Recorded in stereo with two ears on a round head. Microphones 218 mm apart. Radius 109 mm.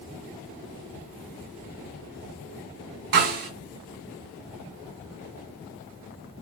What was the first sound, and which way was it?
A snare drum, 60° right (ahead or behind).